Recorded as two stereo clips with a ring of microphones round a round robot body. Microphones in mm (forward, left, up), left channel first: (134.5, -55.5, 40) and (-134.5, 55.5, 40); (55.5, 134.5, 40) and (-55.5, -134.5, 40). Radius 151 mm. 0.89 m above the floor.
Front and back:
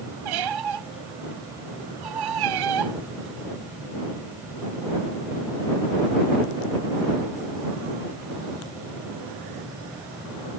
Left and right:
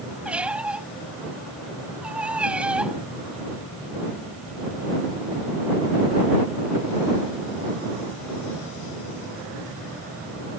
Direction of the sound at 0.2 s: 160° left.